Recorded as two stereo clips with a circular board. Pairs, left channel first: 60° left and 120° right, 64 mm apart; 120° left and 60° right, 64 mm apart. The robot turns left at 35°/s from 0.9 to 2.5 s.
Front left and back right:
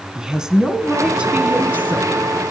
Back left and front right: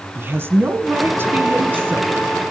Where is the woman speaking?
50° right, 1.6 m; by 2.4 s 100° right, 1.6 m.